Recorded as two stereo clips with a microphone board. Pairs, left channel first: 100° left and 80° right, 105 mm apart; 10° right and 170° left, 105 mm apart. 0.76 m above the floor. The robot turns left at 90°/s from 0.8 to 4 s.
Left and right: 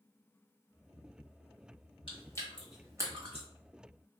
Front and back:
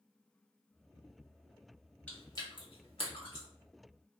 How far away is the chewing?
About 1.2 m.